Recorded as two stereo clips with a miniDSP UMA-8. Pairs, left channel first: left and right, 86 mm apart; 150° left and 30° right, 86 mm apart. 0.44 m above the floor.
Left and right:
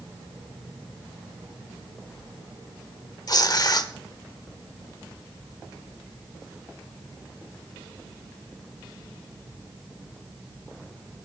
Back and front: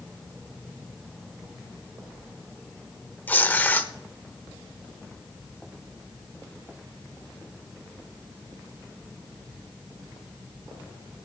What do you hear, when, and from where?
3.3 s tearing paper: 85° left, 0.9 m